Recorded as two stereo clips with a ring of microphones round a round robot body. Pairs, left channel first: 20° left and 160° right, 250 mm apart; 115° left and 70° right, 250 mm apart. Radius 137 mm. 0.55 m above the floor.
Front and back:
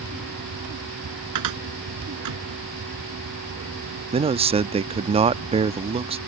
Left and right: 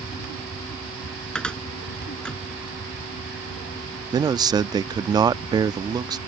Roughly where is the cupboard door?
Behind.